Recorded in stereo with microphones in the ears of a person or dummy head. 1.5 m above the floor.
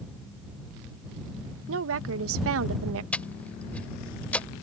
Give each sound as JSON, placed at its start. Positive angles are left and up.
{"t": 1.7, "sound": "a woman speaking", "side_deg": -80}
{"t": 3.1, "sound": "breathing", "side_deg": 10}